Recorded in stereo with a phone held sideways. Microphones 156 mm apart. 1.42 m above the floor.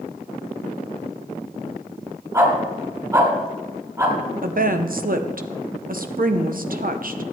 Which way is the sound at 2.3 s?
20° right (ahead or behind).